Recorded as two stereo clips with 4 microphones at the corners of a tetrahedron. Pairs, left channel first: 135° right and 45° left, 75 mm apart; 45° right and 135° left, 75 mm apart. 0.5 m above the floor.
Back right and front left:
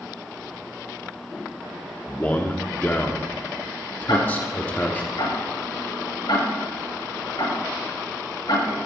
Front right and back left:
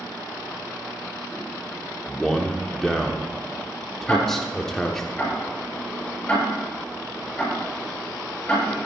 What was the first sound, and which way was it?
A man speaking, 120° right.